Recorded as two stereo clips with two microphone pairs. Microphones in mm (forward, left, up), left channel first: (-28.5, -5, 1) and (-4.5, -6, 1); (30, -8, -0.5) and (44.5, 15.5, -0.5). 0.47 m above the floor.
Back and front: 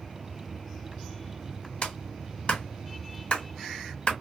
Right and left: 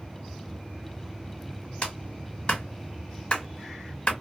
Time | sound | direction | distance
1.8 | a clap | 165° right | 1.5 m